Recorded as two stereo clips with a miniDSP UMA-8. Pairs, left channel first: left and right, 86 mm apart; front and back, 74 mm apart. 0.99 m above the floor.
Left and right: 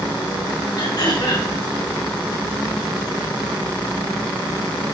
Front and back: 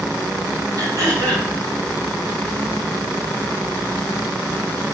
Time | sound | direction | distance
0.8 | throat clearing | 135° left | 3.5 m